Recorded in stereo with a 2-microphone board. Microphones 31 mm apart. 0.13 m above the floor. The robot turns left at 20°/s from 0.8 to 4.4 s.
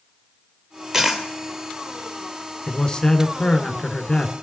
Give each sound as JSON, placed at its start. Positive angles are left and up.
{"t": 0.9, "sound": "a dropped coin", "side_deg": -20, "distance_m": 1.7}
{"t": 2.7, "sound": "a man speaking", "azimuth_deg": 130, "distance_m": 1.4}